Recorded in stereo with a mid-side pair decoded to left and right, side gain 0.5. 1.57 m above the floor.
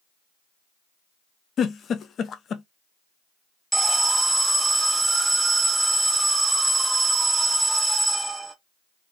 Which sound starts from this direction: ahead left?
A giggle, at 1.6 s.